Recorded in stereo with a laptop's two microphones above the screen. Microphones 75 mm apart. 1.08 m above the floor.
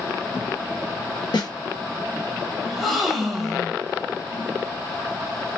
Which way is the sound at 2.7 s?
Centre (ahead or behind).